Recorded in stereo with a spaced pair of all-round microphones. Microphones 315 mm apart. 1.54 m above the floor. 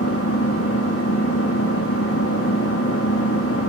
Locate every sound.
0.0 s an engine running: 45° left (ahead or behind), 2.5 m